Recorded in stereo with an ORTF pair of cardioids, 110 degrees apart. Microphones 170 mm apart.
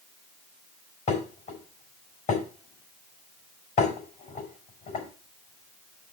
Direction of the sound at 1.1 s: 40° left.